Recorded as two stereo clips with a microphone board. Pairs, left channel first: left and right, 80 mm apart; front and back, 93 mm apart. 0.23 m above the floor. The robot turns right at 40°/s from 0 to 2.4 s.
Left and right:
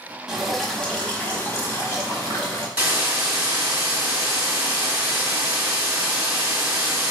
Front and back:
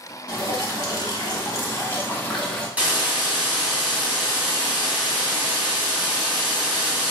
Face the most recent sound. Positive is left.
turn(degrees=-130)